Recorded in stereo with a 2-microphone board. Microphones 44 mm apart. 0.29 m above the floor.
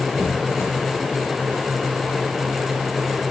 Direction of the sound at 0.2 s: 75° left (ahead or behind).